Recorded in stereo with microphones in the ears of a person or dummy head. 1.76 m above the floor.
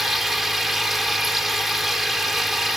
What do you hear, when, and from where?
0.0 s a machine running: centre (ahead or behind)